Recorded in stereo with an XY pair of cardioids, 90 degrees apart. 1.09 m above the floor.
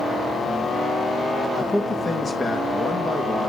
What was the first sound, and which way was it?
A man speaking, 35° left.